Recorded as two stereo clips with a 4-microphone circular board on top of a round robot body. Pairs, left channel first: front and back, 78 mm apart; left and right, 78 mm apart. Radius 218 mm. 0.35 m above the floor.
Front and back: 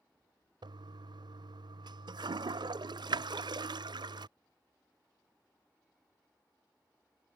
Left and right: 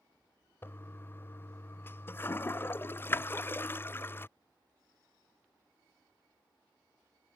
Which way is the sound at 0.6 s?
155° left.